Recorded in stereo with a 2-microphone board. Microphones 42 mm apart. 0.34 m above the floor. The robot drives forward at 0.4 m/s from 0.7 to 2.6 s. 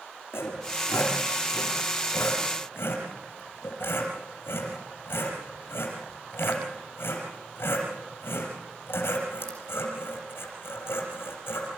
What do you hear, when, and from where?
0.3 s sawing: 75° left (ahead or behind), 5.5 m; by 11.7 s 70° left (ahead or behind), 6 m